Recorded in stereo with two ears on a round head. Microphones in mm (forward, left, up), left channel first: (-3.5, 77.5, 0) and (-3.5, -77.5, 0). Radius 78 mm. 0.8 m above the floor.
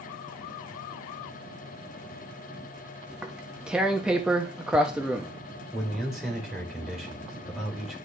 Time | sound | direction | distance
3.1 | tearing paper | 5° right (ahead or behind) | 0.8 m
5.7 | a man speaking | 5° right (ahead or behind) | 3 m